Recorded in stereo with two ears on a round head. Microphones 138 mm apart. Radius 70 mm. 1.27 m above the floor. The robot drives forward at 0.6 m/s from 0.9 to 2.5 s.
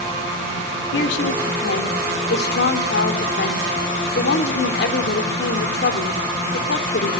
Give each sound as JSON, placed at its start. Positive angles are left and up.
{"t": 0.9, "sound": "a woman speaking", "side_deg": 85, "distance_m": 4.0}